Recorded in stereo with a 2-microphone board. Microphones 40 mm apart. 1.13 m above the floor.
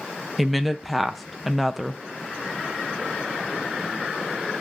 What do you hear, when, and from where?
0.4 s a woman speaking: centre (ahead or behind), 0.6 m